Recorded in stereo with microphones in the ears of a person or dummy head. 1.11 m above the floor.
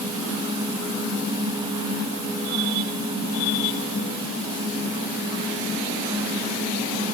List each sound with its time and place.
Only background noise.